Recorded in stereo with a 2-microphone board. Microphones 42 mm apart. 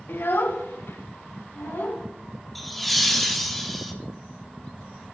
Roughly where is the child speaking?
Left.